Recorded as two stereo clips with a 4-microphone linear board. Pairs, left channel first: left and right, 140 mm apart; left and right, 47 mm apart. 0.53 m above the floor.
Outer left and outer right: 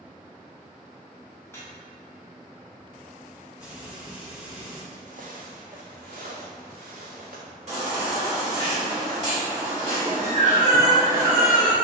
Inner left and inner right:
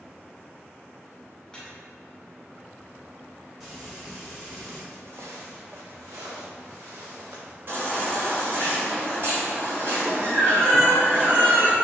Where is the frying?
10° right (ahead or behind), 1.5 m.